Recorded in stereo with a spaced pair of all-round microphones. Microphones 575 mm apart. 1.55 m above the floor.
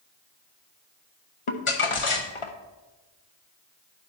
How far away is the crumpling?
About 0.9 m.